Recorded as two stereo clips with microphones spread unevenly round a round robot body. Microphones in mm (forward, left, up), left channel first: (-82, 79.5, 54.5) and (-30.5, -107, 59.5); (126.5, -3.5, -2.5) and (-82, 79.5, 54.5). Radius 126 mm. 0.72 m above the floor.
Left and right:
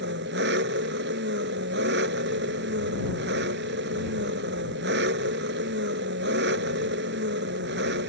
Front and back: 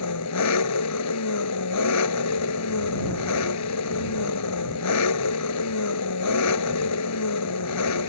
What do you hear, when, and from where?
0.0 s an engine running: 30° right